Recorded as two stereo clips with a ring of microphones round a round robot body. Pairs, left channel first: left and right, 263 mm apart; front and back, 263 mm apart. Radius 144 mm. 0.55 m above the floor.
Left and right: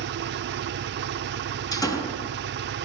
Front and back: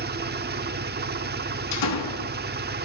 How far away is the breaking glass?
I don't hear breaking glass.